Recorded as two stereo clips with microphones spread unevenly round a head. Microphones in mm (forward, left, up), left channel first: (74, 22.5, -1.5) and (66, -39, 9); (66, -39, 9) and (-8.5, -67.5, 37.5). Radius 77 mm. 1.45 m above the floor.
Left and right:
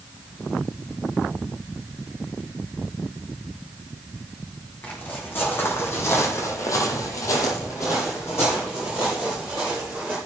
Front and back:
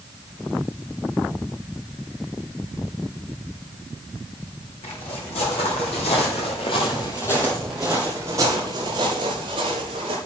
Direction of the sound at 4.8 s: 25° left.